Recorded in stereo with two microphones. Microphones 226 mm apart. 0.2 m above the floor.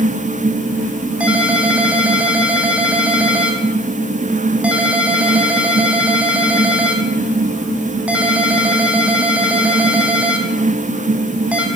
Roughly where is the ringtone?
Centre.